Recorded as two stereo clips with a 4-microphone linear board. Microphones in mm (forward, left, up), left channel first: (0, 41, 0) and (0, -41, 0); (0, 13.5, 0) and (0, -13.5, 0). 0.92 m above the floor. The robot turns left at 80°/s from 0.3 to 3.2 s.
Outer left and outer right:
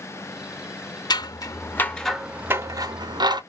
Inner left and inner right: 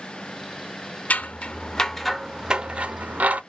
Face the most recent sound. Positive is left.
turn(degrees=-60)  # may be behind; listen again after turning